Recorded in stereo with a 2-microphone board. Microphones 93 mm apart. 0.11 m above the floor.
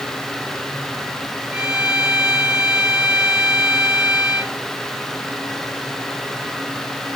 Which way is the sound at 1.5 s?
10° right (ahead or behind).